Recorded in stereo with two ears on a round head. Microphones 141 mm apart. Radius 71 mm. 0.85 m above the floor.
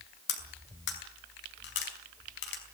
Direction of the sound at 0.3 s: 85° left.